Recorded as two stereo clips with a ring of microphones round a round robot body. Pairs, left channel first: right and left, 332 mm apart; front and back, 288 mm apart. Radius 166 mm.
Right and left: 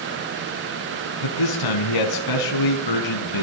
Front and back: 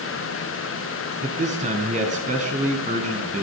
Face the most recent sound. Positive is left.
turn(degrees=-110)